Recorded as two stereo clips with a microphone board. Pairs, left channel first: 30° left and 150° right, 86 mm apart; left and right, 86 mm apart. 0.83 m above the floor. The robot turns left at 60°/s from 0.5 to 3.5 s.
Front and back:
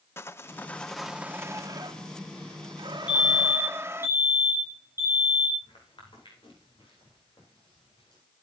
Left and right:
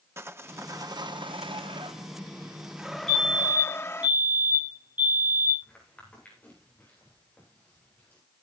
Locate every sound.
0.2 s sawing: 30° right, 0.7 m; by 4.1 s 150° left, 0.7 m
3.1 s a fire alarm: 5° left, 7.5 m; by 5.5 s 20° right, 7.5 m
5.6 s footsteps: 15° left, 9 m; by 8.2 s 20° left, 10.5 m